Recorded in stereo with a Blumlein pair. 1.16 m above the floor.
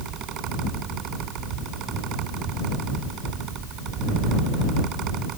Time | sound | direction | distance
0.0 | a fan | 35° right | ?